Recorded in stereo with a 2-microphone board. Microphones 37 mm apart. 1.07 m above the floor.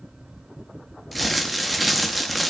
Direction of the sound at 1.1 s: Centre (ahead or behind).